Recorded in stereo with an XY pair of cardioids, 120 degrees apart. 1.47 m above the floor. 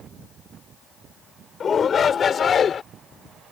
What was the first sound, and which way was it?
A shout, 35° left.